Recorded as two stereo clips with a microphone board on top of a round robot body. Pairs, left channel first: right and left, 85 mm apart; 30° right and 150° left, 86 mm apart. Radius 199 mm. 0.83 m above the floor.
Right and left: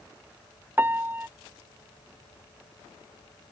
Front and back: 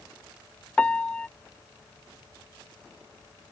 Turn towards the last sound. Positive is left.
turn(degrees=40)